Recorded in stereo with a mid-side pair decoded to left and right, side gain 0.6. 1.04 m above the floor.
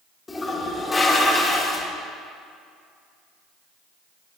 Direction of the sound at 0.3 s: 20° left.